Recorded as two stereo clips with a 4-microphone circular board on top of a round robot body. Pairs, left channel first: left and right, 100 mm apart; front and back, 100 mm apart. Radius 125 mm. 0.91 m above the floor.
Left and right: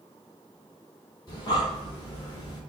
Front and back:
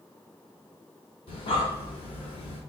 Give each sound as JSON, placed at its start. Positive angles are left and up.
{"t": 1.3, "sound": "breathing", "azimuth_deg": 40, "distance_m": 1.3}